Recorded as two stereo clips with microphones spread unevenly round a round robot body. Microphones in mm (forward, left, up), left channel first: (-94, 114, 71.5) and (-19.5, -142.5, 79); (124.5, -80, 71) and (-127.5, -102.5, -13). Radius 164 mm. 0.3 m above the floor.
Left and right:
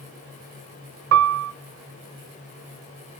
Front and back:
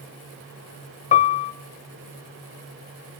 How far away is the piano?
About 1.0 m.